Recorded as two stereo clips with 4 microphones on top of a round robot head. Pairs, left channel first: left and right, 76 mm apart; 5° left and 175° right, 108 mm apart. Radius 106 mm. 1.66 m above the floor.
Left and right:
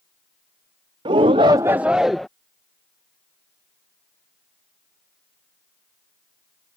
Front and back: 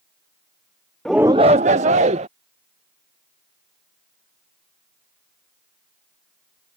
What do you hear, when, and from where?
1.1 s a shout: 85° right; by 2.3 s straight behind